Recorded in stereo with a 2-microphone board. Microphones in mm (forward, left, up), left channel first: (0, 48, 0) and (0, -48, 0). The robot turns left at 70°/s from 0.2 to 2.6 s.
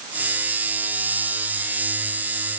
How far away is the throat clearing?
I don't hear throat clearing.